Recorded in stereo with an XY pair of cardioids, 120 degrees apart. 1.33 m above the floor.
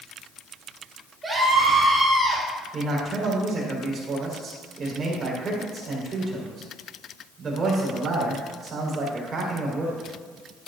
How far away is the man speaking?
About 5 m.